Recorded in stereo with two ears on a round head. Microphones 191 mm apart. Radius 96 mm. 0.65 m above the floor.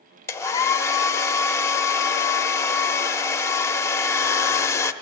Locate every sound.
0.3 s a hair dryer: 15° left (ahead or behind), 0.7 m